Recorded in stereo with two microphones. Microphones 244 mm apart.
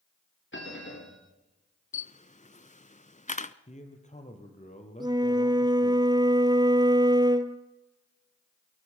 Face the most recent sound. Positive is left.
turn(degrees=-15)  # may be behind; listen again after turning